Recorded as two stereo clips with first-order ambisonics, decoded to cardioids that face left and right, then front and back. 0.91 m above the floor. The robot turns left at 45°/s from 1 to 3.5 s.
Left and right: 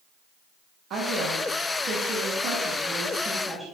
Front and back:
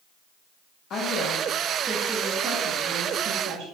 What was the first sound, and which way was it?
A woman speaking, 45° right.